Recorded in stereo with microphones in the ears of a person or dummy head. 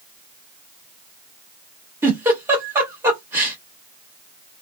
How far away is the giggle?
About 1.1 m.